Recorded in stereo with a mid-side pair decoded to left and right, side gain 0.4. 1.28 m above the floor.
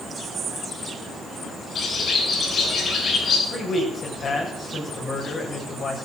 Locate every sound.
1.8 s a bird: 60° left, 8.5 m
3.5 s a man speaking: 50° left, 7 m